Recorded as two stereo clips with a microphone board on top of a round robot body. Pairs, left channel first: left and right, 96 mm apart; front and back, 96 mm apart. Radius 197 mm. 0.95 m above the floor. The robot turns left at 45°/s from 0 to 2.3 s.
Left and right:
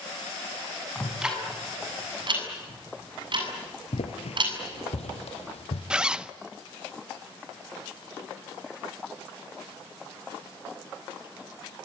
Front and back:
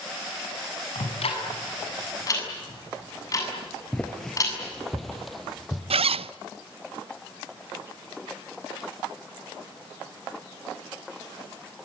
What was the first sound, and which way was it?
Ticking, 5° left.